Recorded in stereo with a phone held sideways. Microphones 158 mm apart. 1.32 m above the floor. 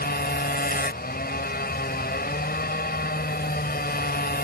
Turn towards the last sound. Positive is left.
turn(degrees=80)